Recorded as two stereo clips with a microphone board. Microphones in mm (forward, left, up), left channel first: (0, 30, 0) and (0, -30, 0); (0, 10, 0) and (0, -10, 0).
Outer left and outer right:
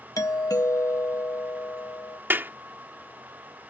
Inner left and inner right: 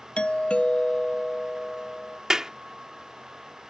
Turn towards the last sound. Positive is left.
turn(degrees=-35)  # may be behind; listen again after turning